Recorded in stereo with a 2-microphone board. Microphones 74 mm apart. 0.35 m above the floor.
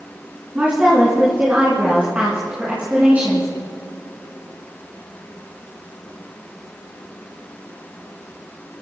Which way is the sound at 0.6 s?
20° right (ahead or behind).